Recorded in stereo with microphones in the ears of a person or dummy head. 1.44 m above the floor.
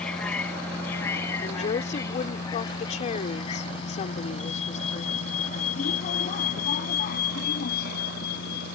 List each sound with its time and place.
0.0 s a vehicle: 10° left (ahead or behind); by 8.8 s 65° left (ahead or behind)
1.4 s a woman speaking: 35° left (ahead or behind)